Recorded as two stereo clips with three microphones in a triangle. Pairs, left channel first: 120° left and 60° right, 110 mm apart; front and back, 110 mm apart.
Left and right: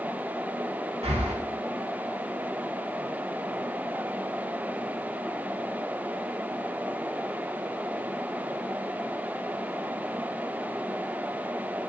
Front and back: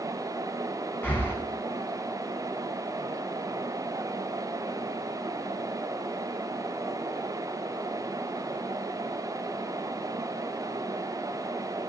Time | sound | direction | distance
1.0 | breathing | 70° right | 1.3 m